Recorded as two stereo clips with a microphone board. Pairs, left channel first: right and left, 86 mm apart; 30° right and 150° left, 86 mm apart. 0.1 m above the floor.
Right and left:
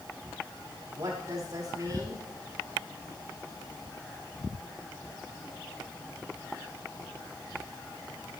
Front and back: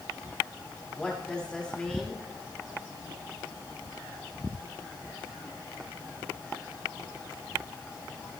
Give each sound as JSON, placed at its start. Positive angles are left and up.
{"t": 1.0, "sound": "a woman speaking", "azimuth_deg": 50, "distance_m": 6.0}